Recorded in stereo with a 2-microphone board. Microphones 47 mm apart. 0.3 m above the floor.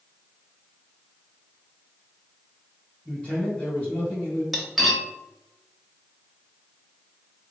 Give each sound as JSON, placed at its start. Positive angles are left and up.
{"t": 3.0, "sound": "a man speaking", "side_deg": 30, "distance_m": 1.8}
{"t": 4.5, "sound": "cutlery clinking", "side_deg": 0, "distance_m": 0.6}